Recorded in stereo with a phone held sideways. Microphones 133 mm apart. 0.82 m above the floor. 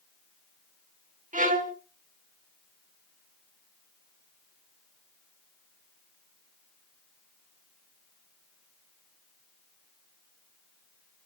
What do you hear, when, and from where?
1.3 s a violin: 65° right (ahead or behind), 1.5 m